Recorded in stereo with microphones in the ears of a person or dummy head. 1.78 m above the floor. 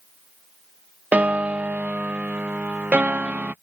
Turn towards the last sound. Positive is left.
turn(degrees=-5)  # may be behind; listen again after turning